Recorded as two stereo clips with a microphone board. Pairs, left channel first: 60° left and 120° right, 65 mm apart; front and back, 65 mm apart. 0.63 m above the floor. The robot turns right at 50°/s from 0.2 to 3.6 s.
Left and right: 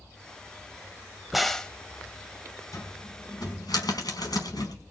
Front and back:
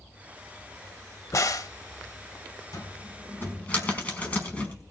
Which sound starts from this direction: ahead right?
A crack, at 1.3 s.